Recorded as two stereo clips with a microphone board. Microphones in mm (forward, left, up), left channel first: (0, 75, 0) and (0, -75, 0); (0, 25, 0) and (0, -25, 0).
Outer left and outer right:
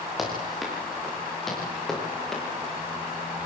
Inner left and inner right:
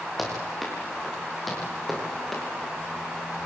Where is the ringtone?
I don't hear a ringtone.